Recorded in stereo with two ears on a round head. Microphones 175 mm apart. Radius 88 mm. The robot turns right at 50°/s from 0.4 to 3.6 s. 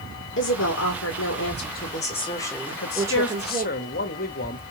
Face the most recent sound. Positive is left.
turn(degrees=130)